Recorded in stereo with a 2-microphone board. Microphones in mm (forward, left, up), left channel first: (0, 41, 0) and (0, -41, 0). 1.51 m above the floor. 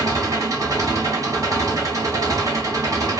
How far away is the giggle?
No giggle in this recording.